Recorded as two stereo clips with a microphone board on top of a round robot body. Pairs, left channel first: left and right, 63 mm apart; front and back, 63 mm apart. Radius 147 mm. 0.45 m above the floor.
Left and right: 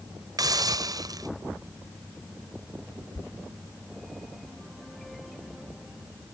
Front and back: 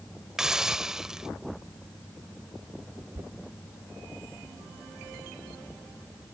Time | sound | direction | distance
0.4 | a hiss | 100° right | ?
3.1 | knocking | 115° left | ?